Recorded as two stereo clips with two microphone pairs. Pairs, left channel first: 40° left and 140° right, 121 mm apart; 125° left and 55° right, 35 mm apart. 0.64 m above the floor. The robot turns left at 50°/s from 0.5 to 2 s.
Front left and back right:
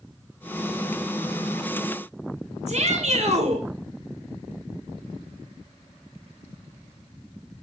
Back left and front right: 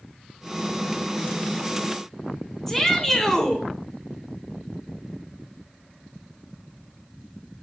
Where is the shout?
155° right, 2.5 m.